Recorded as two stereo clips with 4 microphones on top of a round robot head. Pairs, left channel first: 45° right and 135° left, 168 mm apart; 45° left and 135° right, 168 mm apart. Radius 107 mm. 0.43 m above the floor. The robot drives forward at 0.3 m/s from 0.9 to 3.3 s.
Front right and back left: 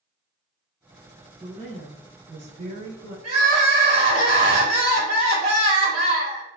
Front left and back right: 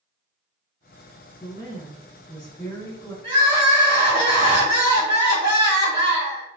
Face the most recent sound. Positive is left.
turn(degrees=175)